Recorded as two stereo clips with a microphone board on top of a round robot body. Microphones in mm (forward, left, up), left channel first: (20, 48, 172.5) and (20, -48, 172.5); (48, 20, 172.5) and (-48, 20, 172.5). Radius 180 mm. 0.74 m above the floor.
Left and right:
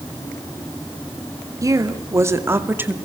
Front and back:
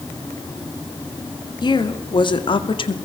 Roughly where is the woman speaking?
Ahead right.